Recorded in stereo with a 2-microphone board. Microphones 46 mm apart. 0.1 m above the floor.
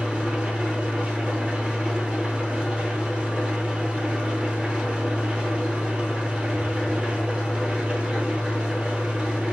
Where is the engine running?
25° right (ahead or behind), 0.9 m.